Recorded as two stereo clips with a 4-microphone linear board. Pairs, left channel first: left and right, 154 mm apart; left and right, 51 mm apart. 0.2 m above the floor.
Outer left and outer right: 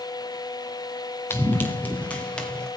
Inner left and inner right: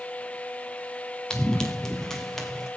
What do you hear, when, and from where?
1.3 s running footsteps: 15° left (ahead or behind), 1.8 m; by 2.7 s 5° left (ahead or behind), 3 m